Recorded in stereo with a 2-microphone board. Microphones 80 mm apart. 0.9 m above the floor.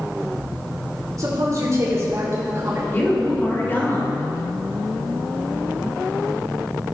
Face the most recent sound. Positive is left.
turn(degrees=25)  # may be behind; listen again after turning